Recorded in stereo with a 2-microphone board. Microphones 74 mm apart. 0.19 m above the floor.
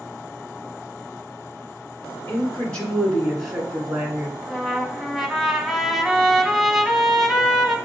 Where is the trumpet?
Centre (ahead or behind), 0.7 m.